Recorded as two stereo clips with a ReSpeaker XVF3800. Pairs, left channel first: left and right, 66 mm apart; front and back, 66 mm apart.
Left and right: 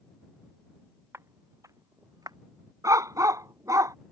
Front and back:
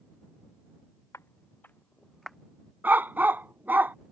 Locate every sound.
1.1 s footsteps: 45° right; by 2.4 s 95° right
2.8 s a dog barking: 120° right